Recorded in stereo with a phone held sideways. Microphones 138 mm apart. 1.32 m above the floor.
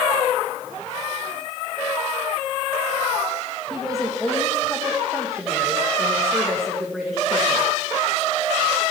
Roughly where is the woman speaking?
Centre.